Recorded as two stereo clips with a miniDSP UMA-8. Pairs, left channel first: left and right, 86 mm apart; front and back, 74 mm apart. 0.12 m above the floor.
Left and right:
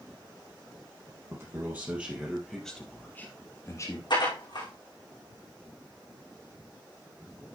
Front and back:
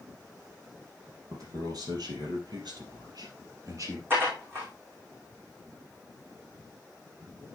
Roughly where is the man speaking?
Behind right.